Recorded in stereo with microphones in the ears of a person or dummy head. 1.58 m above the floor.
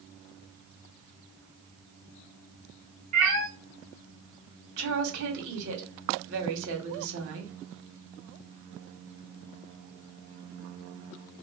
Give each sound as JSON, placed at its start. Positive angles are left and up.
{"t": 3.1, "sound": "a cat meowing", "side_deg": -45, "distance_m": 1.7}
{"t": 4.8, "sound": "a woman speaking", "side_deg": -55, "distance_m": 2.0}